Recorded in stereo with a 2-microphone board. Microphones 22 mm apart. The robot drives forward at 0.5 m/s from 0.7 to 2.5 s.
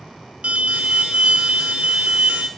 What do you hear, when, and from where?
0.4 s an alarm: 85° right, 2 m; by 2.5 s 70° right (ahead or behind), 2 m